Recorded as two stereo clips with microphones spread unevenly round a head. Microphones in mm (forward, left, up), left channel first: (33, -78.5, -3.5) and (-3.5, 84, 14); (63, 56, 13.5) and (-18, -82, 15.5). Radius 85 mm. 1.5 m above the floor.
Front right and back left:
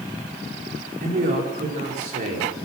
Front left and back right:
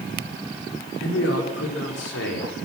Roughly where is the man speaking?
Ahead left.